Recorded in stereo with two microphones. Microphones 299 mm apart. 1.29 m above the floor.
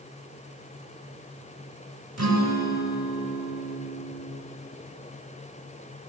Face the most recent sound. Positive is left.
turn(degrees=-55)  # may be behind; listen again after turning